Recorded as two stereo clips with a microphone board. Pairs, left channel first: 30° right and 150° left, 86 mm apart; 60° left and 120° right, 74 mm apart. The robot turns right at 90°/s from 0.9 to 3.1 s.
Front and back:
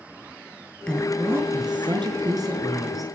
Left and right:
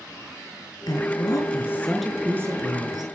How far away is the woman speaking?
About 4.5 m.